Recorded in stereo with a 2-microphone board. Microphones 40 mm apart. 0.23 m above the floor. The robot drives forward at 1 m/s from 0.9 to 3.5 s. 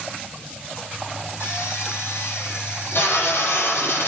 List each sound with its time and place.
1.4 s a drill: 70° left (ahead or behind), 7 m; by 4.1 s 60° left (ahead or behind), 8 m